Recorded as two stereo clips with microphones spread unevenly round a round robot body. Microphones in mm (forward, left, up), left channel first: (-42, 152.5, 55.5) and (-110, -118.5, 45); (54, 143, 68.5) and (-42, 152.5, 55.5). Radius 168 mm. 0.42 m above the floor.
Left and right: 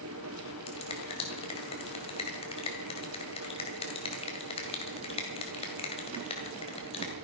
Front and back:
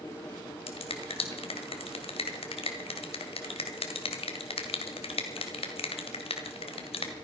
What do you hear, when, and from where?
0.7 s a finger snap: 5° left, 2 m